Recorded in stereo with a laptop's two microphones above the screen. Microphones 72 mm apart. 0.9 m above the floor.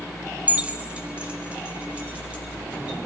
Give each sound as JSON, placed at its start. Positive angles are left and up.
{"t": 0.5, "sound": "keys jangling", "side_deg": -20, "distance_m": 0.6}